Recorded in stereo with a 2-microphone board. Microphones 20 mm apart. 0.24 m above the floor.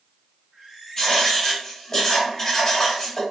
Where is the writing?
15° left (ahead or behind), 1.5 m.